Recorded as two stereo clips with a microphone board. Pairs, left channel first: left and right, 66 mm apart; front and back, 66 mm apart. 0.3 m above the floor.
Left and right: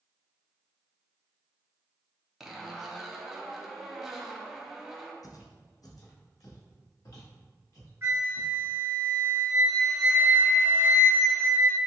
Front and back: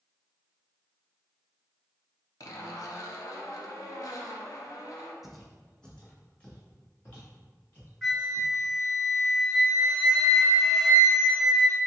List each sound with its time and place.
2.4 s a zipper: 5° right, 0.5 m
5.2 s footsteps: 95° left, 0.6 m; by 8.5 s 55° left, 2 m
8.0 s a flute: 85° right, 1.3 m